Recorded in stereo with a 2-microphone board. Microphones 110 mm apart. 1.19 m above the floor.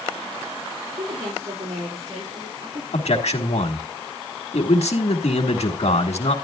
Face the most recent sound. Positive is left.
turn(degrees=85)